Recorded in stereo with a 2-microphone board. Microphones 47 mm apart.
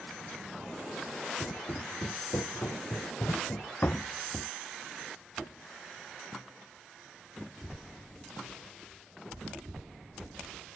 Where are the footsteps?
80° left; by 4.5 s 20° left (ahead or behind).